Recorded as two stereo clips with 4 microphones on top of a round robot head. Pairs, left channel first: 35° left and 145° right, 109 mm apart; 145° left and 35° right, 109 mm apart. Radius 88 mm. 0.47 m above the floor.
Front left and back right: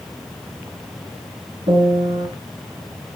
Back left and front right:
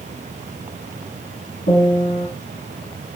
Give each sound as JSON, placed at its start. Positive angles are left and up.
{"t": 1.7, "sound": "a piano", "azimuth_deg": 165, "distance_m": 1.9}